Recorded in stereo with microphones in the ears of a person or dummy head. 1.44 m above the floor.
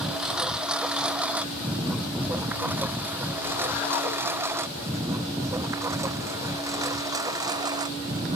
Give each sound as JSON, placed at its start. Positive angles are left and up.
{"t": 0.0, "sound": "a lawn mower", "side_deg": -5}